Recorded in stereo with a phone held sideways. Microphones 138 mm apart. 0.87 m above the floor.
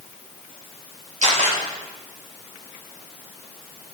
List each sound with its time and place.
1.2 s a camera shutter: 60° right (ahead or behind), 4 m